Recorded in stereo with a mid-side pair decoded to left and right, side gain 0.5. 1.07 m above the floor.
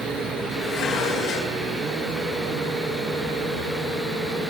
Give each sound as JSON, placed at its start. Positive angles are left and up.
{"t": 0.6, "sound": "dishes clattering", "azimuth_deg": 65, "distance_m": 9.5}